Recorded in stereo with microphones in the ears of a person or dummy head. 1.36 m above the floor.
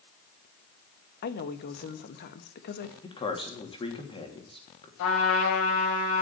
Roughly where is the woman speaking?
Left.